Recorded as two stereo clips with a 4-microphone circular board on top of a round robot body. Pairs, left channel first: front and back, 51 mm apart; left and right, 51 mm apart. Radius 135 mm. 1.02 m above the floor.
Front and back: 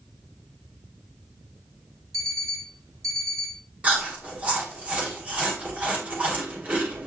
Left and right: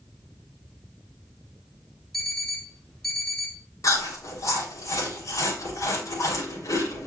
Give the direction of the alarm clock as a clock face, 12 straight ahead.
6 o'clock.